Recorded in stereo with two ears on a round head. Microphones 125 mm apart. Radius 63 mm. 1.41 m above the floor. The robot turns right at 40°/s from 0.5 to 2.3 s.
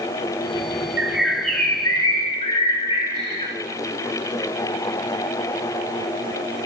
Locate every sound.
1.0 s a bird: 15° right, 4 m; by 3.5 s 40° left, 4 m